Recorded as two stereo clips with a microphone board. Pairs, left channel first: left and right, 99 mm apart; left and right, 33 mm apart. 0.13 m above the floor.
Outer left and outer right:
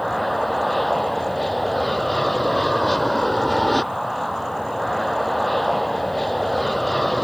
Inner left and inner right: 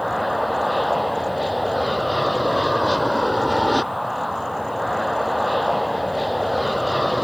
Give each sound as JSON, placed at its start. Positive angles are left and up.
{"t": 0.0, "sound": "an aircraft", "side_deg": 0}